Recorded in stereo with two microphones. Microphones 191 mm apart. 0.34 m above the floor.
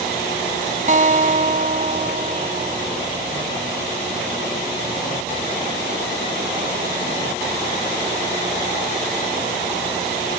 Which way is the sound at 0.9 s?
45° right (ahead or behind).